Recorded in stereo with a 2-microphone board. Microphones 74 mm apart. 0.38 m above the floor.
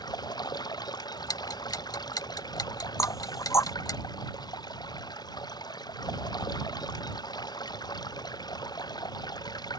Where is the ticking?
60° left (ahead or behind).